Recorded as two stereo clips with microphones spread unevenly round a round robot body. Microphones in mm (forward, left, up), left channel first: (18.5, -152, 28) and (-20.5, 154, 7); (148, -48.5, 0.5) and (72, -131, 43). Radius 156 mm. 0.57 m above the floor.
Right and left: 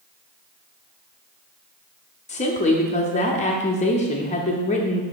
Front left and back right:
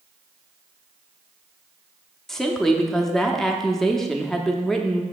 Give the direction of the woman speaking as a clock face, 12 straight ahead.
1 o'clock.